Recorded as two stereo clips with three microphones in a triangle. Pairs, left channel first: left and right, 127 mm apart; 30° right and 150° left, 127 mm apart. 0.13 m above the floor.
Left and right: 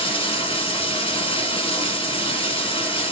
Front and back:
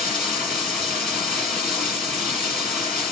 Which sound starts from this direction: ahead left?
Running water, at 0.0 s.